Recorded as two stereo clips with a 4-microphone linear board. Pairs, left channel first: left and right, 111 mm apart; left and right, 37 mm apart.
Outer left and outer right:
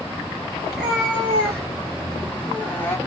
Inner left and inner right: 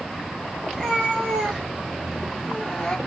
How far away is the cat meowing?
About 4 m.